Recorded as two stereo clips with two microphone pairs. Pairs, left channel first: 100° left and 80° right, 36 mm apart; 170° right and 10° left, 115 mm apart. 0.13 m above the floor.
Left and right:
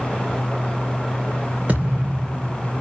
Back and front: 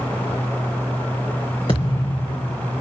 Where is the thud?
125° right, 3 m.